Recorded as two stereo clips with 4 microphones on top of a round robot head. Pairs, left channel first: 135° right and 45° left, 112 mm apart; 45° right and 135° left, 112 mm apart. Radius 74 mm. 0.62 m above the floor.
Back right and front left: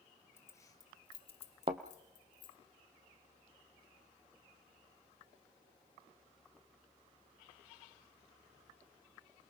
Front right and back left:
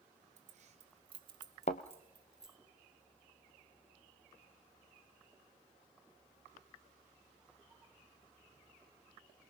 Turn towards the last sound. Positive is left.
turn(degrees=-5)